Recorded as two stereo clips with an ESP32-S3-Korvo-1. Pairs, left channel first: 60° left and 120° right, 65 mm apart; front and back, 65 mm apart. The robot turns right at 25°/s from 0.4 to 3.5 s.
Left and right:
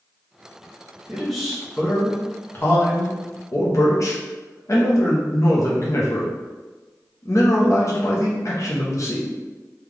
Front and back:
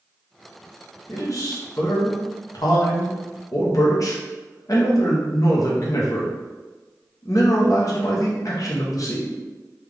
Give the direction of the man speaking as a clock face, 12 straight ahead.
1 o'clock.